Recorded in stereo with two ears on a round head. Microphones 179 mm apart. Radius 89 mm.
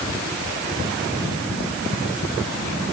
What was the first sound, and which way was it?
Only background noise.